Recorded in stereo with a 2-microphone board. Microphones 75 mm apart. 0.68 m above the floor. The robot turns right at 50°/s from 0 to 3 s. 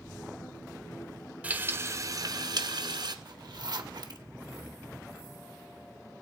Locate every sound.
1.4 s frying: 160° right, 1.2 m; by 3.1 s 80° right, 1.2 m
3.2 s a zipper: 60° right (ahead or behind), 1.0 m